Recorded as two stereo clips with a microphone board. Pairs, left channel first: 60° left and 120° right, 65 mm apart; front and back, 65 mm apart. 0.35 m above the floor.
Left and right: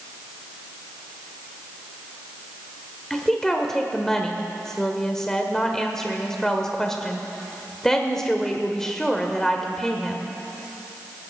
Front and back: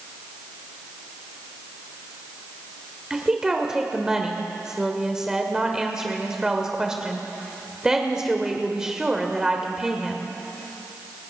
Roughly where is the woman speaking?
Behind left.